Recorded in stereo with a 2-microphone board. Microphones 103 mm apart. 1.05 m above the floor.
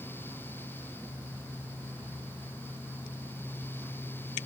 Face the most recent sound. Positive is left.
No sound to turn to.